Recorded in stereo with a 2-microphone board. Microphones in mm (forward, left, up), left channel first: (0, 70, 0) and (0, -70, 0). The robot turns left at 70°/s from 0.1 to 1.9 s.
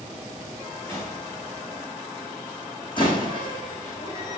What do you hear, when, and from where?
0.9 s a gunshot: 15° left (ahead or behind), 4.5 m; by 1.2 s 40° left (ahead or behind), 4.5 m
3.0 s a door slam: 35° left (ahead or behind), 5 m